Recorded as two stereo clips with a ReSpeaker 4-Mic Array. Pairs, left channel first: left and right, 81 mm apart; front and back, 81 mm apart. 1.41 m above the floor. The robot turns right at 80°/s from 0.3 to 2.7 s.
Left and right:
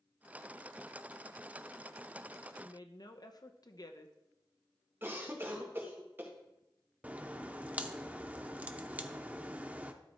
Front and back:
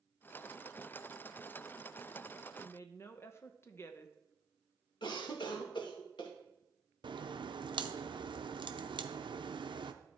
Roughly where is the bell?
I don't hear a bell.